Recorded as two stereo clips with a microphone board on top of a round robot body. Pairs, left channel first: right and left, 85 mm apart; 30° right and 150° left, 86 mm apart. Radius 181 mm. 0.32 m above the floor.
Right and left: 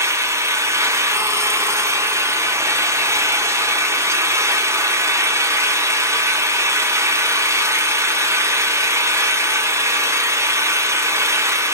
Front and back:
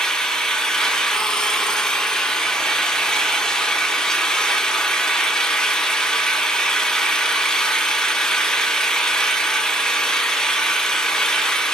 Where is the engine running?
50° left, 1.2 m.